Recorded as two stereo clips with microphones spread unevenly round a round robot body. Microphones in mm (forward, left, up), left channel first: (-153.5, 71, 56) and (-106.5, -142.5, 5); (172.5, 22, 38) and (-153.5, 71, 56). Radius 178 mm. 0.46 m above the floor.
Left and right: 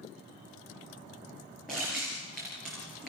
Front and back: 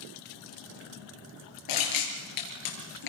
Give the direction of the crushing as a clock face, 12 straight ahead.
12 o'clock.